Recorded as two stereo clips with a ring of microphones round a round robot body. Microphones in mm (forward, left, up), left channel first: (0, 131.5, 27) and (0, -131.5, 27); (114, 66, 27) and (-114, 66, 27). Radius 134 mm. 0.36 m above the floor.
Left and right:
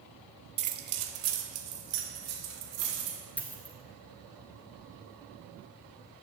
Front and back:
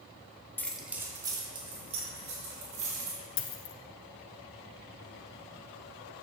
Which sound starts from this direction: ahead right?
Keys jangling, at 0.6 s.